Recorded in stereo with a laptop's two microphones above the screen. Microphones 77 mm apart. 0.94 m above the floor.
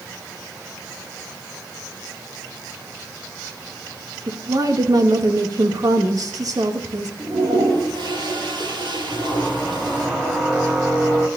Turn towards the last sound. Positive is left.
turn(degrees=-15)  # may be behind; listen again after turning